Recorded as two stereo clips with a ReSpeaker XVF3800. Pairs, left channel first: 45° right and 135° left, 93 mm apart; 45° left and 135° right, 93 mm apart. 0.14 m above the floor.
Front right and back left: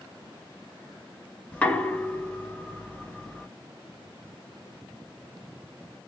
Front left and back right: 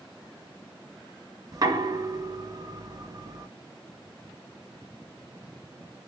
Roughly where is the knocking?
Behind right.